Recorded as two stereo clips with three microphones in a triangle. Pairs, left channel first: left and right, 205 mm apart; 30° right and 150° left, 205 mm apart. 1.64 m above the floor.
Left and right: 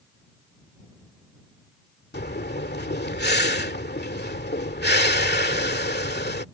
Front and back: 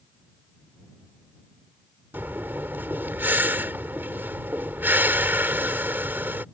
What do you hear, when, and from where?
2.1 s breathing: 70° left